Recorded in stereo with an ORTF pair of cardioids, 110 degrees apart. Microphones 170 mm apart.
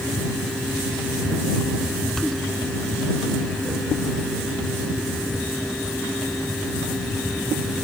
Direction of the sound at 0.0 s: Straight ahead.